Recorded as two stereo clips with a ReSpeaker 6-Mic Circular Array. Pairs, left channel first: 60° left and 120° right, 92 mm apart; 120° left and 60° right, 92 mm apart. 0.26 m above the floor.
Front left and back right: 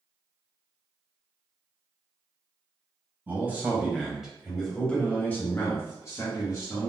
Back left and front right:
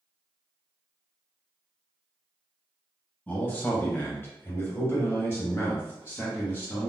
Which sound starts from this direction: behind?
A man speaking, at 3.3 s.